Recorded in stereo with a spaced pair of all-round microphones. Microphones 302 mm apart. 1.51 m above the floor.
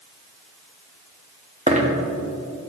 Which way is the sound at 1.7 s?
20° right (ahead or behind).